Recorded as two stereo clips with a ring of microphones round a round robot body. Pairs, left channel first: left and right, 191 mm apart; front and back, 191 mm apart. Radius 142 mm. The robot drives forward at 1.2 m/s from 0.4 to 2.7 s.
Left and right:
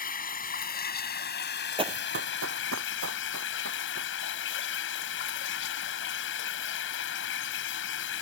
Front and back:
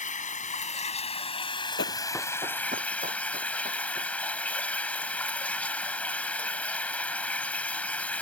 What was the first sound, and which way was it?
Running water, 50° left.